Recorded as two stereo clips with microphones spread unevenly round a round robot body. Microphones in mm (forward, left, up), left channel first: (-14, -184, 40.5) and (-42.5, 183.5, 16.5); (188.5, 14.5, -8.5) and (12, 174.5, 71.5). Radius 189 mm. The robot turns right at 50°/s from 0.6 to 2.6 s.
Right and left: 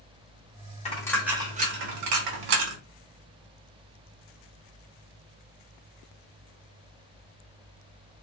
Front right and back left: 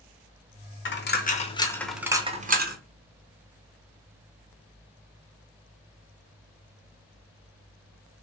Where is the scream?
No scream in this recording.